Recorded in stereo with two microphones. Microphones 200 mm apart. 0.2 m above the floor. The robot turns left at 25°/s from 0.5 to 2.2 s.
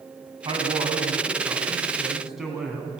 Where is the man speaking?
135° right, 2.0 m; by 2.9 s 175° right, 2.0 m.